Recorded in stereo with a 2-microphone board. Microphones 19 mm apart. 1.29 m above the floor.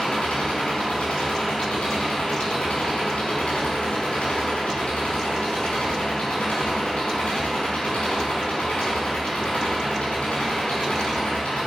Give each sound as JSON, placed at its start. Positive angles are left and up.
{"t": 0.0, "sound": "an engine running", "side_deg": 70, "distance_m": 4.5}